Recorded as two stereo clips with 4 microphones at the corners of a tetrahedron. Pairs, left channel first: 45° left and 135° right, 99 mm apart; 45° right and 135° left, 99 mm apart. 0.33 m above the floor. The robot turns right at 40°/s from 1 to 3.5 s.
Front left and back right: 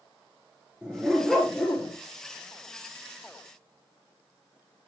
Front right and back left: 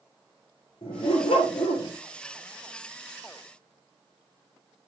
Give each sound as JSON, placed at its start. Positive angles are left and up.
{"t": 0.8, "sound": "a dog barking", "azimuth_deg": -55, "distance_m": 3.0}